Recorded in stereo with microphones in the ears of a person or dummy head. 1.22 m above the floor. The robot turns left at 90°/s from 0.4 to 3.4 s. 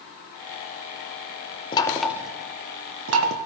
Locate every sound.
1.7 s knocking: 30° left (ahead or behind), 0.6 m; by 3.4 s 55° right (ahead or behind), 0.6 m